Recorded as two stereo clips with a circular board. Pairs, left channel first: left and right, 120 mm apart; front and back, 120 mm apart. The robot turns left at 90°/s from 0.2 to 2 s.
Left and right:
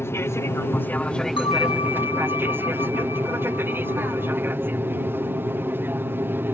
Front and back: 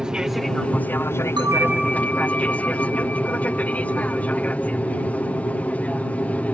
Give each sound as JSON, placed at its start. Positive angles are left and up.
{"t": 0.0, "sound": "an aircraft", "azimuth_deg": 105}
{"t": 1.4, "sound": "a bell", "azimuth_deg": 130}